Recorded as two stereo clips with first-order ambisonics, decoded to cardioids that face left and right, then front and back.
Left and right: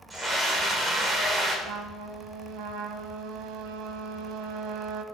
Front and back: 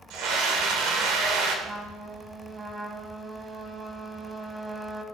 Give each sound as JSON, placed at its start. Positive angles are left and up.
{"t": 0.1, "sound": "a scream", "azimuth_deg": -165, "distance_m": 1.8}
{"t": 1.6, "sound": "a trumpet", "azimuth_deg": -105, "distance_m": 0.7}